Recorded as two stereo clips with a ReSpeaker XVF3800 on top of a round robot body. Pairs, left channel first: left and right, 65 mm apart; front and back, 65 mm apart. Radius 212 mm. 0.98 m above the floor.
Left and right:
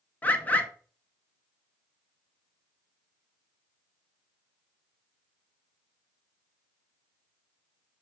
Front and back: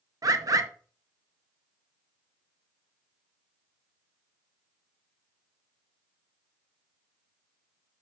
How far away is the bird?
About 0.7 m.